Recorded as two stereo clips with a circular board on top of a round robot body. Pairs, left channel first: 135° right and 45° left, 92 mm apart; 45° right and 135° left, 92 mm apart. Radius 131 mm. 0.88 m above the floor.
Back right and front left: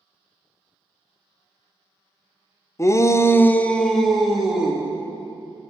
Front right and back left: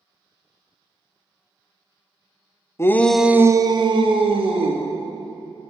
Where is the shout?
90° right, 0.7 m; by 4.8 s 130° left, 1.6 m.